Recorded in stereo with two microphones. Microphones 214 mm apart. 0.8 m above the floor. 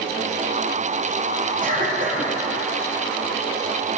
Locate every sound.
1.6 s a cough: 40° right (ahead or behind), 1.8 m